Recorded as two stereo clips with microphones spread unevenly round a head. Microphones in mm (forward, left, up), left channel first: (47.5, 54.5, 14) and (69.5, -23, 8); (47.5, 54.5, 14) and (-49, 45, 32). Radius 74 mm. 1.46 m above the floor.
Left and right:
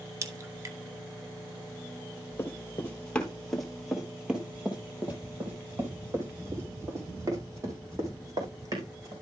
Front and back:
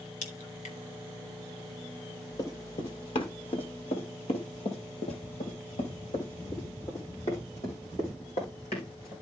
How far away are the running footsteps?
About 2.5 m.